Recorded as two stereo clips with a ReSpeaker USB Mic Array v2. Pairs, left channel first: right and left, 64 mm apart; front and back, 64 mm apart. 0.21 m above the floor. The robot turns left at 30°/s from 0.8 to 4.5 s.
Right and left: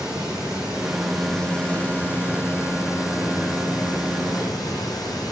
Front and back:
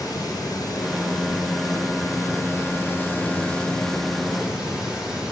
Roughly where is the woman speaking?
I don't hear a woman speaking.